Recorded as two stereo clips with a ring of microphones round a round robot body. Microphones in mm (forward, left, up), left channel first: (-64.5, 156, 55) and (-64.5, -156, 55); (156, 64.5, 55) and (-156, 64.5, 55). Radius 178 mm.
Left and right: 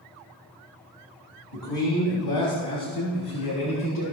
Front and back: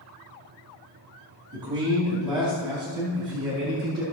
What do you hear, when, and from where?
1.5 s a man speaking: 105° left, 3 m